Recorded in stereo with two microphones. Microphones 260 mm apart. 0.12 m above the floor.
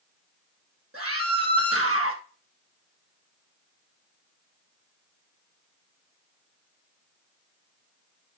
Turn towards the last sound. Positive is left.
turn(degrees=-60)  # may be behind; listen again after turning